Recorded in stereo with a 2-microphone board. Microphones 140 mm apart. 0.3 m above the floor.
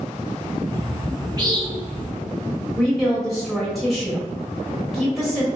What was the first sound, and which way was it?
A bird, 25° right (ahead or behind).